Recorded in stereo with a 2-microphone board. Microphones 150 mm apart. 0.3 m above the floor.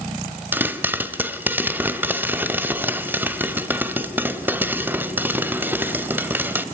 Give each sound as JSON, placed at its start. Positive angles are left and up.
{"t": 0.5, "sound": "a pop", "side_deg": -15, "distance_m": 1.2}